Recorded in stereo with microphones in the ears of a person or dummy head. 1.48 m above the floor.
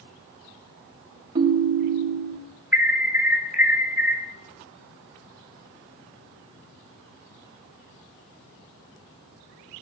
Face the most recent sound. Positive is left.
turn(degrees=-10)  # may be behind; listen again after turning